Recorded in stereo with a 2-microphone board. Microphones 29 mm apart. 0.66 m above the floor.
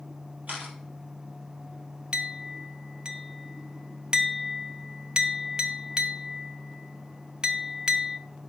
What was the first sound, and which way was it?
A camera shutter, 65° right (ahead or behind).